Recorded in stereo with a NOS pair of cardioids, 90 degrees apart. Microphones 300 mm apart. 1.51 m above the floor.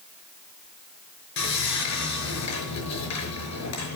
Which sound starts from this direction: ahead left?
Sawing, at 1.4 s.